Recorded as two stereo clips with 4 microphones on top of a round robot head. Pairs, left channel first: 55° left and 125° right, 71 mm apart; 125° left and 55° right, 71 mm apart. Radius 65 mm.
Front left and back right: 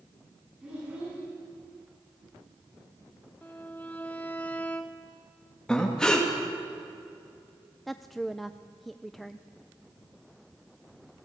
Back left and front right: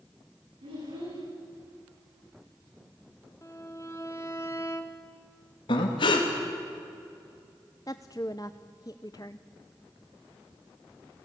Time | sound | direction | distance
0.6 | a child speaking | 50° right | 9 m
3.4 | a violin | 110° left | 0.7 m
5.7 | breathing | 135° left | 3 m
7.9 | a woman speaking | 140° left | 0.5 m